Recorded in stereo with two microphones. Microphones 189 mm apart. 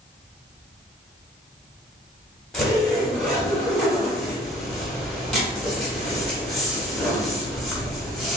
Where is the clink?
No clink in this recording.